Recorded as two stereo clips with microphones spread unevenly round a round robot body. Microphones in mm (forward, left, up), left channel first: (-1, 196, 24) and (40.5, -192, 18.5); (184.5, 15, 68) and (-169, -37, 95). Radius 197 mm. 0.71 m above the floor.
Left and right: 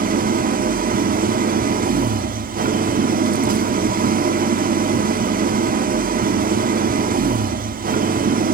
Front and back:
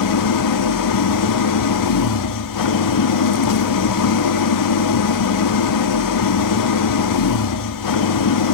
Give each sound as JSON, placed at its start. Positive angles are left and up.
{"t": 0.0, "sound": "an engine running", "azimuth_deg": -15, "distance_m": 1.4}